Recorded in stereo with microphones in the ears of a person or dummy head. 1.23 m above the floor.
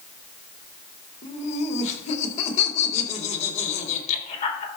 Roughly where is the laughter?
Left.